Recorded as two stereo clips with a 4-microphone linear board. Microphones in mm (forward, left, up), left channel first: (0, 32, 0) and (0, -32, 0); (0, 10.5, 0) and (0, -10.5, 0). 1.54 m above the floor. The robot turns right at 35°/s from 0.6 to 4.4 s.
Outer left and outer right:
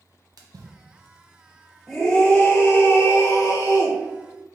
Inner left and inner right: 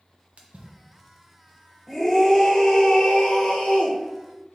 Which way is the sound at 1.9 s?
5° left.